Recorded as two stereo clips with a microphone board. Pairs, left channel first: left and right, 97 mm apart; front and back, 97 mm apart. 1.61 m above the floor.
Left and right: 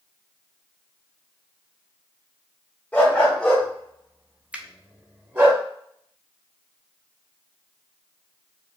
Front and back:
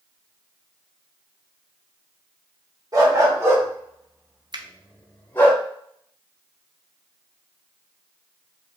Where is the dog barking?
155° left, 1.6 m; by 5.5 s 45° right, 1.5 m.